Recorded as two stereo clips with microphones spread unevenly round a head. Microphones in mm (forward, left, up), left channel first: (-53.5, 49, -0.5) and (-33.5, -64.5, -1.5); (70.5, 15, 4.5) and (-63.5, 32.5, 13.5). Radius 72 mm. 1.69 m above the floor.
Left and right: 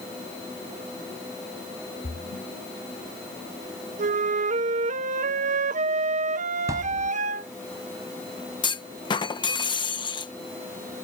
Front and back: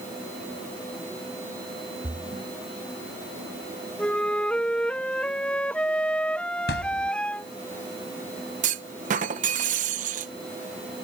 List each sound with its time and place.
2.0 s a splash: 110° left
4.0 s a flute: 90° right
6.7 s a thud: 10° right
8.6 s a clunk: 145° left